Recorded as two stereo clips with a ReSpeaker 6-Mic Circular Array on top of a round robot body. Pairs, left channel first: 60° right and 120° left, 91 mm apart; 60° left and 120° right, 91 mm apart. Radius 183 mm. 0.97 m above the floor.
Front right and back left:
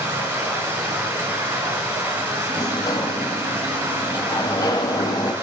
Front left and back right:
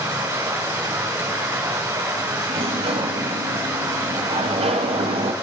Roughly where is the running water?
Behind.